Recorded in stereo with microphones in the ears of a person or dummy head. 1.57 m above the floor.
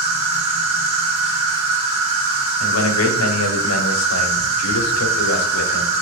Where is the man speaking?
85° left, 0.9 m.